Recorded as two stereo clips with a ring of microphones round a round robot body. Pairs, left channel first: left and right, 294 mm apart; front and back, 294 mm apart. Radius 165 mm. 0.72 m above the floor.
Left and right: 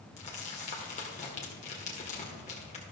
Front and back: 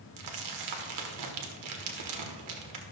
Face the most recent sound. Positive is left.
turn(degrees=160)